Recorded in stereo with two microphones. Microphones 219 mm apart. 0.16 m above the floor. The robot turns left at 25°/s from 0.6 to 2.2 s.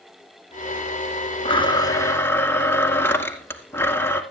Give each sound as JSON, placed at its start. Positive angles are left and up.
{"t": 1.4, "sound": "a blender", "side_deg": 25, "distance_m": 2.0}